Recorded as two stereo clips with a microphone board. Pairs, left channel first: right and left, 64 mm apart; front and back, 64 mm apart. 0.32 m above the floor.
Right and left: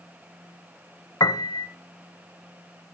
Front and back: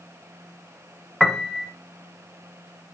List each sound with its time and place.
1.2 s a piano: 85° right, 0.8 m